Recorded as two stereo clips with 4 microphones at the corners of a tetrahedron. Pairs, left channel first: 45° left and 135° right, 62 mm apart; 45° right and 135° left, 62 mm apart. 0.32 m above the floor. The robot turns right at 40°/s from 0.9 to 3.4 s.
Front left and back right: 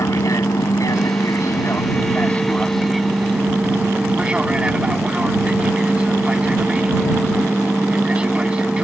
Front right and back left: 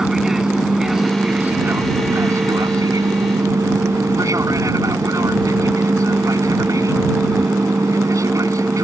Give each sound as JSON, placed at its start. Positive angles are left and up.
{"t": 0.0, "sound": "an aircraft", "azimuth_deg": 50}